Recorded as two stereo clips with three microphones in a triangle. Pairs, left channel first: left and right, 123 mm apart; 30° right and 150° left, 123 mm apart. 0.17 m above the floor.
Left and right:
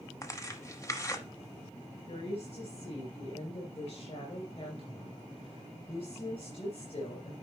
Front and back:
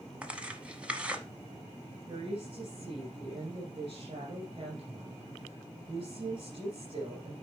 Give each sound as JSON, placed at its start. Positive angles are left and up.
{"t": 0.2, "sound": "tearing paper", "azimuth_deg": 85, "distance_m": 0.9}
{"t": 2.1, "sound": "a woman speaking", "azimuth_deg": 115, "distance_m": 2.5}